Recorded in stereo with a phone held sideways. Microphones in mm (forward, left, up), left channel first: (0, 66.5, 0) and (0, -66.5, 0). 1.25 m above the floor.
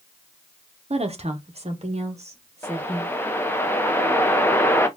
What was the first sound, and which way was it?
A woman speaking, 50° right (ahead or behind).